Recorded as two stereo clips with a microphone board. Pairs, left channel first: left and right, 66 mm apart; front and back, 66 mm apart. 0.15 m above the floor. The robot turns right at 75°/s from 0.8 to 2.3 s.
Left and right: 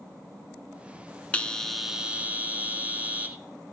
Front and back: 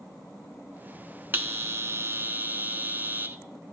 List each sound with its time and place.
1.3 s a bell: 150° left, 0.6 m; by 3.4 s 140° right, 0.6 m